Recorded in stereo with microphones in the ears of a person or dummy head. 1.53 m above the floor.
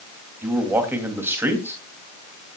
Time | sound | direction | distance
0.4 | a man speaking | 15° right (ahead or behind) | 2.5 m